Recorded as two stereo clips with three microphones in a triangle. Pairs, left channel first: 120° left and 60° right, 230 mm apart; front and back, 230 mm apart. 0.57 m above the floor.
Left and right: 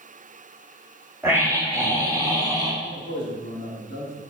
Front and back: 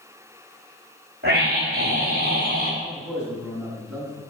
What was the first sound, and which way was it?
A scream, 140° right.